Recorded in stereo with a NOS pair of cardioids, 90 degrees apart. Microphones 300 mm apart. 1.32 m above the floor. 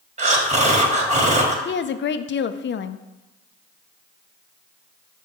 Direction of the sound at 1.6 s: 40° left.